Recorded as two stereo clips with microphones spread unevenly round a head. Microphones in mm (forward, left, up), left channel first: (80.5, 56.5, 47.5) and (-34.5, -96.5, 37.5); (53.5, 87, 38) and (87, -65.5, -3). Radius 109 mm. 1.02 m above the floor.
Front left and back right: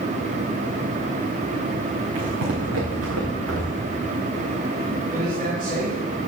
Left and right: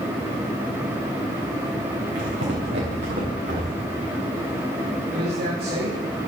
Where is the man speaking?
85° right, 3 m.